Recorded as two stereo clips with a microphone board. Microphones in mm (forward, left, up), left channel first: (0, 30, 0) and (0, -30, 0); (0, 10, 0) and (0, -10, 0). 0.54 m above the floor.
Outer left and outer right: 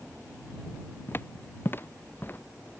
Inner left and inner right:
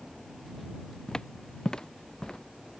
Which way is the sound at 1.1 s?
40° left (ahead or behind).